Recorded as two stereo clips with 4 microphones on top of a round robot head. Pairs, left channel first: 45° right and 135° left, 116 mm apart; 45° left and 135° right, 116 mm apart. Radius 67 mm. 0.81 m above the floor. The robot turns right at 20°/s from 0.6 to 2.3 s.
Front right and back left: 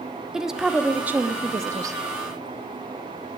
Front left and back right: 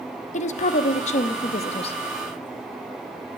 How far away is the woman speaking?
About 0.8 m.